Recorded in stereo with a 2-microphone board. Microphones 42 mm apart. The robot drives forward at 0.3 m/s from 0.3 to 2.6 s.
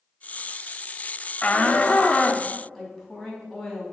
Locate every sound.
1.4 s a shout: 30° left (ahead or behind), 0.9 m; by 2.5 s 25° left (ahead or behind), 1.0 m
2.8 s a woman speaking: centre (ahead or behind), 4 m